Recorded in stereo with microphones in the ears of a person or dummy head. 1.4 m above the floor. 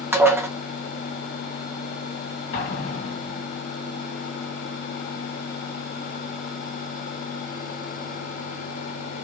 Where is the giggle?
I don't hear a giggle.